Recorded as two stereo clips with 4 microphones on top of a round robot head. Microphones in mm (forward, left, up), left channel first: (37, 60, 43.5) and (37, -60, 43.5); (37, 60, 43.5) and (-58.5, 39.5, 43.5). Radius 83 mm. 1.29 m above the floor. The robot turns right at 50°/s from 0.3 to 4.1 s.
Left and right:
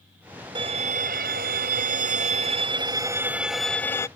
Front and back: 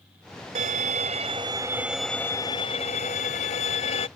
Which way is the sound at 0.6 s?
150° right.